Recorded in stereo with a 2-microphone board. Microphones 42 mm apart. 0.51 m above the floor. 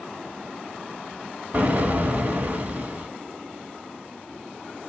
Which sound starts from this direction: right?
An explosion, at 1.5 s.